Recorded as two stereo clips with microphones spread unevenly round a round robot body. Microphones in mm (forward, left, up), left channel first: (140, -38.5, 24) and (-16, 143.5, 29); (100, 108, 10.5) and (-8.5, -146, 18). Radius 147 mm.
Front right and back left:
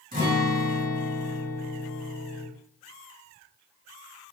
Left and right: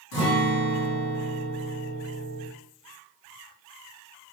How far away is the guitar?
About 1.4 m.